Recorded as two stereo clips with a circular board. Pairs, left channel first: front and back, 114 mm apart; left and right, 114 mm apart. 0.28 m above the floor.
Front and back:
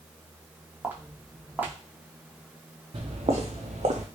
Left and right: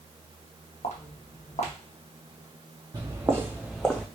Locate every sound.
0.8 s footsteps: 105° left, 0.8 m
2.9 s footsteps: 145° right, 0.9 m; by 4.1 s 165° left, 0.8 m